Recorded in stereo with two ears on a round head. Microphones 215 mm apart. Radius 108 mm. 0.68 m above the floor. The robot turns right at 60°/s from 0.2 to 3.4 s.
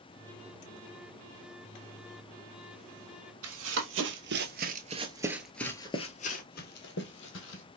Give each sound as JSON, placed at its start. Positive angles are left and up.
{"t": 3.4, "sound": "running footsteps", "side_deg": -65, "distance_m": 1.5}